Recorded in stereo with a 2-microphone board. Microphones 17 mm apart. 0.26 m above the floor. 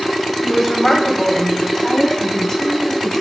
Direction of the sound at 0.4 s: 15° left (ahead or behind).